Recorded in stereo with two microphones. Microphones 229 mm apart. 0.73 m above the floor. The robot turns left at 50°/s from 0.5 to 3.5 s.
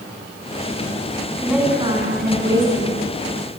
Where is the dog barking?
I don't hear a dog barking.